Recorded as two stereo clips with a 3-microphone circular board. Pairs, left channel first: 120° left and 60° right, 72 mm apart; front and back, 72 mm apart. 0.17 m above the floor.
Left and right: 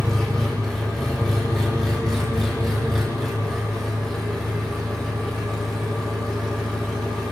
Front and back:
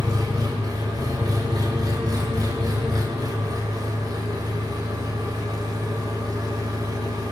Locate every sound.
0.0 s an engine running: 155° right, 8 m